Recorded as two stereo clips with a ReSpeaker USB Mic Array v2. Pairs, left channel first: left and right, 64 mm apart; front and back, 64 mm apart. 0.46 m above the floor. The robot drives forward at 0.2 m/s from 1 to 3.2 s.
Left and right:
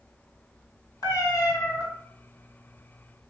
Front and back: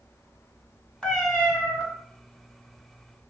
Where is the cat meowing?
80° left, 1.4 m; by 1.8 s 85° left, 1.4 m.